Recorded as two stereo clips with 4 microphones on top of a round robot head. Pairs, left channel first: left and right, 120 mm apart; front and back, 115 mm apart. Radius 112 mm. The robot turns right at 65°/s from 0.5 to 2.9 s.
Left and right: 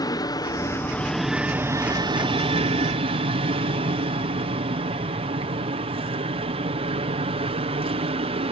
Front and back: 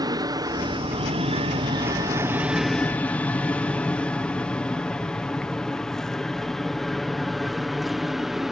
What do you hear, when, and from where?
0.0 s an aircraft: 135° left; by 8.5 s 95° right